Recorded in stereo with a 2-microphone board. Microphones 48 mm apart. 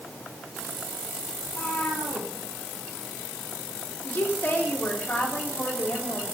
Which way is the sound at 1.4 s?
30° left (ahead or behind).